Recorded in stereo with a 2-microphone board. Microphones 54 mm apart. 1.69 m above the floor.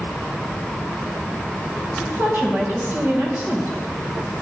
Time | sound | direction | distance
2.0 | a woman speaking | 35° right (ahead or behind) | 2.5 m